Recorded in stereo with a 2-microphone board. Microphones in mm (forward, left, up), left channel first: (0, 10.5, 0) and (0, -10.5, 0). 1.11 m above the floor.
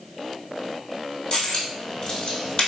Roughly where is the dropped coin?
Left.